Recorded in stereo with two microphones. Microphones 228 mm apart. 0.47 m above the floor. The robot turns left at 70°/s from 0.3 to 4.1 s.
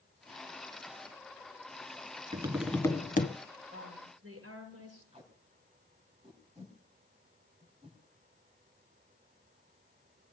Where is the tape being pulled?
30° right (ahead or behind), 3.5 m.